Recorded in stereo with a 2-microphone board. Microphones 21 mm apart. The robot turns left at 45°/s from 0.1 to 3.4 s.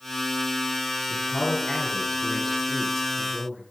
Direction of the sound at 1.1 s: 85° left.